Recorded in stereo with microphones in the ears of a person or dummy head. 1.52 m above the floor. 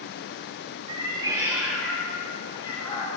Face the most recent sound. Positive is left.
turn(degrees=35)  # may be behind; listen again after turning